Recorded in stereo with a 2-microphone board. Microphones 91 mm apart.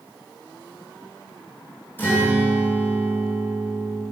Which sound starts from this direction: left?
A guitar, at 2.0 s.